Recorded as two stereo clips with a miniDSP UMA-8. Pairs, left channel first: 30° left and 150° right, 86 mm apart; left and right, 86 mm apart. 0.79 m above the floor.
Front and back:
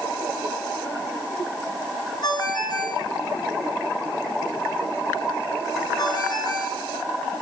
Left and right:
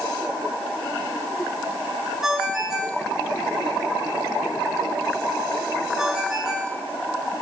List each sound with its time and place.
2.2 s a ringtone: 5° right, 8 m